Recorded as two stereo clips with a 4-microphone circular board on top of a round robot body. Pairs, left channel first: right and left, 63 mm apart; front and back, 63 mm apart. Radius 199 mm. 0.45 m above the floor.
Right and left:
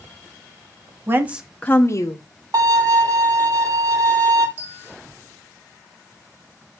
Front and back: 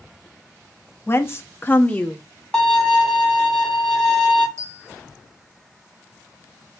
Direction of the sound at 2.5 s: 80° left.